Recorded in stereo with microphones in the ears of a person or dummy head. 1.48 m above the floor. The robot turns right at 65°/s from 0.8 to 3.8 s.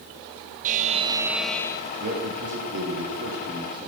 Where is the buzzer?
40° right, 0.5 m; by 1.9 s 30° left, 0.5 m.